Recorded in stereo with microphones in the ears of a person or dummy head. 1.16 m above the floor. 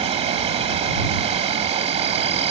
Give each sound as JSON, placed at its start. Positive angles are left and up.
{"t": 0.0, "sound": "an insect", "side_deg": -25}